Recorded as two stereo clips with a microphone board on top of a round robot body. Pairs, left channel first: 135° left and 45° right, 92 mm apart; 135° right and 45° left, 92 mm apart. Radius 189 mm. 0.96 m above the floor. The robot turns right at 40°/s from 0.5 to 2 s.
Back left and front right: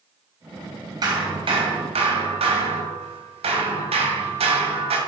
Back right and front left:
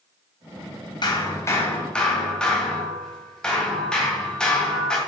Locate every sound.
1.0 s hammering: 95° right, 2.5 m; by 5.0 s 55° right, 2.5 m